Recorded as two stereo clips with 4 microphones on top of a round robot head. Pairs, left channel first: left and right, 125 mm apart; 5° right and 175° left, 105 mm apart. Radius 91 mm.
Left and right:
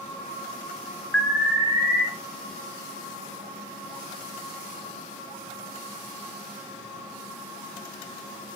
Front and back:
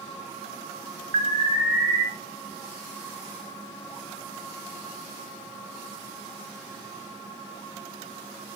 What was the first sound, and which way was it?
An alarm, 170° left.